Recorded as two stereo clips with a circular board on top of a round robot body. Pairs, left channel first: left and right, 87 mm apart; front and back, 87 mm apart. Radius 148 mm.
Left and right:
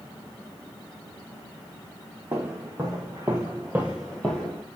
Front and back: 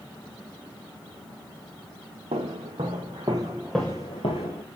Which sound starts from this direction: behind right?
Footsteps, at 2.3 s.